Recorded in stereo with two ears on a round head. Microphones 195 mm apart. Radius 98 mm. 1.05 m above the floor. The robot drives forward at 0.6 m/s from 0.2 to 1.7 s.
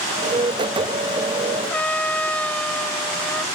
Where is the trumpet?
5° left (ahead or behind).